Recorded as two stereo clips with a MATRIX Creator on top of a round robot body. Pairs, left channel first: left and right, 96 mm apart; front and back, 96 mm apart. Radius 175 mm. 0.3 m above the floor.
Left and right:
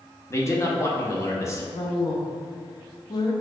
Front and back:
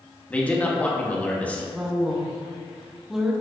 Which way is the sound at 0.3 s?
65° left.